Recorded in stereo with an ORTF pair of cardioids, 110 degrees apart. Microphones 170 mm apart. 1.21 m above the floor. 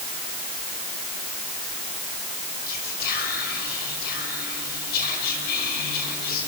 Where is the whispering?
70° left, 6 m.